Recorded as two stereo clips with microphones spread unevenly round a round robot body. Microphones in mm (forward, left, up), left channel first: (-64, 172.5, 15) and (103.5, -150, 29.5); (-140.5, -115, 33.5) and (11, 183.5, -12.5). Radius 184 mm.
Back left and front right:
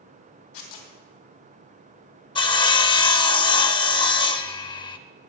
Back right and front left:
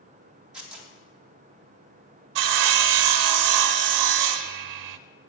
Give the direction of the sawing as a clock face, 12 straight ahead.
11 o'clock.